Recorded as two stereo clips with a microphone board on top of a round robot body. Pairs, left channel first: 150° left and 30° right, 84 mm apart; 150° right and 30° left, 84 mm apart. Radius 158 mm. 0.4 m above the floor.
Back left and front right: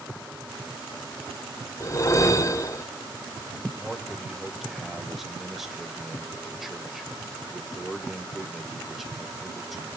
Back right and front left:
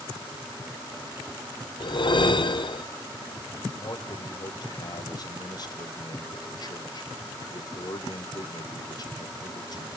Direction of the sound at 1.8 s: 160° right.